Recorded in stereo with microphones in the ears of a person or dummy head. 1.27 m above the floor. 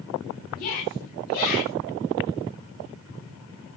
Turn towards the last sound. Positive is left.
turn(degrees=45)  # may be behind; listen again after turning